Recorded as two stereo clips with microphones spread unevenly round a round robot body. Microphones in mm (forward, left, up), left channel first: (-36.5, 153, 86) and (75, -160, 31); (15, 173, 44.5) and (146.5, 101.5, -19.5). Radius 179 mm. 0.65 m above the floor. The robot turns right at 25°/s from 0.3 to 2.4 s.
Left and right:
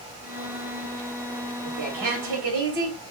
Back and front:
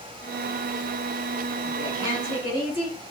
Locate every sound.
1.6 s a woman speaking: 110° right, 3 m; by 3.0 s 90° right, 3 m